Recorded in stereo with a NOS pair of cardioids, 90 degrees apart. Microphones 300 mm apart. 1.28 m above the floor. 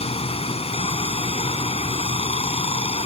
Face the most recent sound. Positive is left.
turn(degrees=20)